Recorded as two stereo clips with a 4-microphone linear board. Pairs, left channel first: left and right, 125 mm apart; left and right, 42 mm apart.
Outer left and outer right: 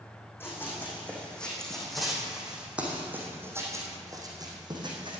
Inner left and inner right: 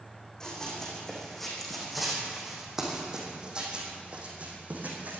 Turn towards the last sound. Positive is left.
turn(degrees=-40)  # may be behind; listen again after turning